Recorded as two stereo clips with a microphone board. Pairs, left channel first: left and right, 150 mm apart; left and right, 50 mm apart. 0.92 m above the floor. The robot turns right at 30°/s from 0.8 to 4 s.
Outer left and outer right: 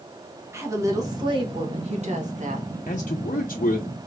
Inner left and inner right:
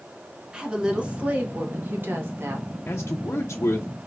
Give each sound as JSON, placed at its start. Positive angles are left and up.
{"t": 0.5, "sound": "a woman speaking", "azimuth_deg": -160, "distance_m": 1.4}
{"t": 2.9, "sound": "a man speaking", "azimuth_deg": 60, "distance_m": 0.6}